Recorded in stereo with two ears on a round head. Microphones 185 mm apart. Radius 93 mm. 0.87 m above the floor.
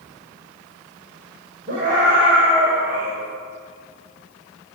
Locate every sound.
1.7 s a scream: 45° right (ahead or behind), 4 m; by 3.1 s 35° right (ahead or behind), 4 m